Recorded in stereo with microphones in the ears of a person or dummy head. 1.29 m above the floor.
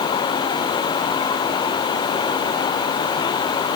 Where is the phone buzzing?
No phone buzzing in this recording.